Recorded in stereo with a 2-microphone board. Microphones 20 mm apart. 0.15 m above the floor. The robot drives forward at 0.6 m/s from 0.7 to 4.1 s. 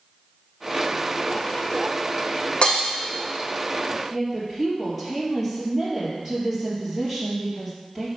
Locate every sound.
2.6 s breaking glass: 65° left (ahead or behind), 2.5 m; by 2.9 s 60° left (ahead or behind), 2.5 m
4.1 s a woman speaking: centre (ahead or behind), 3.5 m